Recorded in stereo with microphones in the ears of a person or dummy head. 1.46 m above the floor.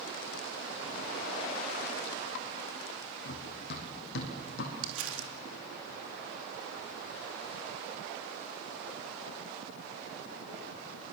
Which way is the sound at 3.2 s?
55° left (ahead or behind).